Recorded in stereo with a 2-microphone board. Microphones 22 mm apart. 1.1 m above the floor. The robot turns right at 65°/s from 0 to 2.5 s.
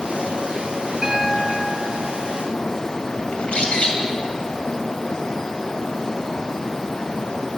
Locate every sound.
1.0 s a piano: 155° right, 1.5 m; by 2.4 s 65° right, 1.5 m
3.3 s a bird: 70° left (ahead or behind), 2.5 m